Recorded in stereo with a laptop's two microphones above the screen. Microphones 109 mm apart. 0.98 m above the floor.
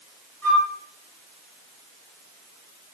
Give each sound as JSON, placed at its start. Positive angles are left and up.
{"t": 0.4, "sound": "a flute", "side_deg": 15, "distance_m": 4.0}